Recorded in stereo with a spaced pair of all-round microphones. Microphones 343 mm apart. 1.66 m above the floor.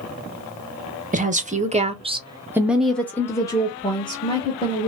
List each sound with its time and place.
1.1 s a woman speaking: 20° right (ahead or behind), 0.8 m; by 4.9 s 15° left (ahead or behind), 1.4 m